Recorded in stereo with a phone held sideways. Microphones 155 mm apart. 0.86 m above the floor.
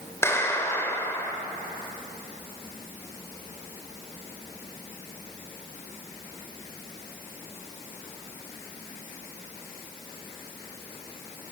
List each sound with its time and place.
0.2 s a clap: 15° left (ahead or behind), 3 m